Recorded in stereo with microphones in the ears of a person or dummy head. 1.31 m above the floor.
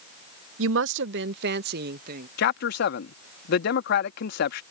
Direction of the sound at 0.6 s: 65° right (ahead or behind).